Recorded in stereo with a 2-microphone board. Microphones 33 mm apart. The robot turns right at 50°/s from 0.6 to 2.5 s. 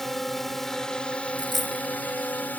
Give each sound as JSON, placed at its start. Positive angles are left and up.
{"t": 0.0, "sound": "a drone", "azimuth_deg": 10}
{"t": 1.4, "sound": "a dropped coin", "side_deg": -10}